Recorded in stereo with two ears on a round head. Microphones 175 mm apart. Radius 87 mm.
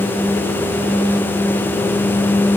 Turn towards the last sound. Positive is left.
No sound to turn to.